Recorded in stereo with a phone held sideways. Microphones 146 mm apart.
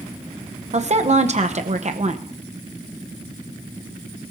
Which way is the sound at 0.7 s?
50° right (ahead or behind).